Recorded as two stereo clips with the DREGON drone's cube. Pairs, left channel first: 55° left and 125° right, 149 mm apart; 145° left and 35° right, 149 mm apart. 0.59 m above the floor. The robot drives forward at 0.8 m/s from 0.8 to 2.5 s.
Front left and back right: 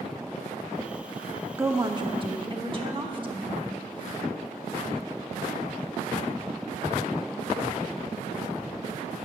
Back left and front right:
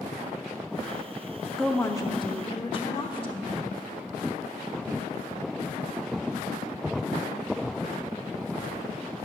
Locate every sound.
1.6 s a woman speaking: 130° right, 0.6 m; by 3.5 s 170° right, 1.0 m